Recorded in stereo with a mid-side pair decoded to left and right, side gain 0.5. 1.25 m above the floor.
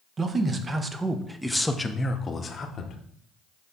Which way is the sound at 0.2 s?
40° right.